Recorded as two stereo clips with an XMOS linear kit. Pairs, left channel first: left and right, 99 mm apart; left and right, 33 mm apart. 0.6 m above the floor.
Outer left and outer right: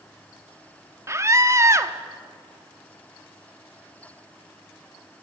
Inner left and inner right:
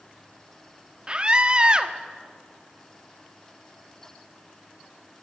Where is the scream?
30° right (ahead or behind), 1.1 m.